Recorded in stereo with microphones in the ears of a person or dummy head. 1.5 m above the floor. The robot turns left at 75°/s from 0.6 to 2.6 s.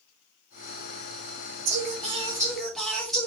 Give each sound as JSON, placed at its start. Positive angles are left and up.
{"t": 1.6, "sound": "singing", "azimuth_deg": -110, "distance_m": 2.0}